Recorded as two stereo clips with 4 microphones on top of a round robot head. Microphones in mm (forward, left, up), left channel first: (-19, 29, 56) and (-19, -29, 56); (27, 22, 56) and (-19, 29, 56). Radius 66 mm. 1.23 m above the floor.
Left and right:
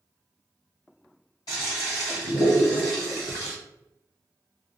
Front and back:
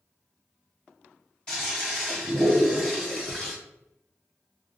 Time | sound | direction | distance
1.5 | a toilet flushing | 55° left | 1.6 m